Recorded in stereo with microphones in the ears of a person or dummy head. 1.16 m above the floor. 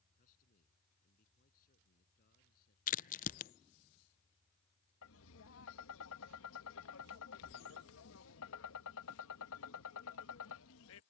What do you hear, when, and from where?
0.1 s a man speaking: 45° left (ahead or behind); by 2.8 s 50° left (ahead or behind)
2.9 s a crack: 45° left (ahead or behind)
5.0 s tapping: 75° left (ahead or behind)